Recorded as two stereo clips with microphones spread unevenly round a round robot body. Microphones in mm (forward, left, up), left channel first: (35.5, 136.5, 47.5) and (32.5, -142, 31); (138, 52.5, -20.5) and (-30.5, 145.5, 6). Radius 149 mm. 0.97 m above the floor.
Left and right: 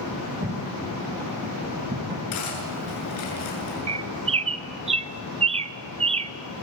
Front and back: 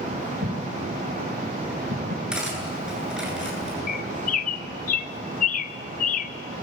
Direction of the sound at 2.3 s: 65° left.